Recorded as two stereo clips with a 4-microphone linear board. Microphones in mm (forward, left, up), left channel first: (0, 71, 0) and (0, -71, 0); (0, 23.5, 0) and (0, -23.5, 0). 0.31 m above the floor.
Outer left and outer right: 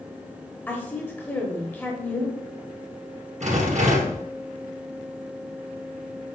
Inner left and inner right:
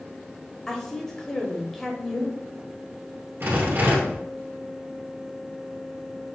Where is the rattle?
60° right (ahead or behind), 2.5 m.